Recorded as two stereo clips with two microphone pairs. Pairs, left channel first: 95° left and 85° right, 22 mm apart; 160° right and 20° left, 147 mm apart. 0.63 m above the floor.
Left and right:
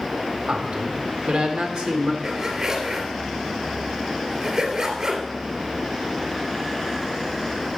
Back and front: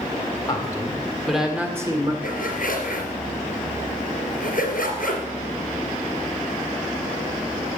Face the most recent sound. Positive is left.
turn(degrees=-145)